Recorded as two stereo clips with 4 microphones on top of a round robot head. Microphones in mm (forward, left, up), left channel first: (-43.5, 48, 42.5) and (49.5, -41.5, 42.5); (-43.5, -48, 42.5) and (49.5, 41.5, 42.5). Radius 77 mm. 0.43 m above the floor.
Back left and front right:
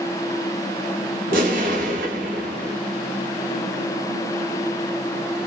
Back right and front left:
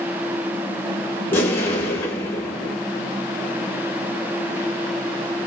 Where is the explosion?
60° right, 1.3 m.